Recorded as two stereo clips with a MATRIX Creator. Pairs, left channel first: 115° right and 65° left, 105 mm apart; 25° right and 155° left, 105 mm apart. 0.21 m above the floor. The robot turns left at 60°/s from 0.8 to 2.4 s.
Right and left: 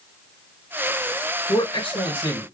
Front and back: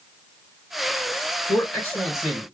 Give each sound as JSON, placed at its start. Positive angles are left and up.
{"t": 1.5, "sound": "a man speaking", "azimuth_deg": -70, "distance_m": 3.0}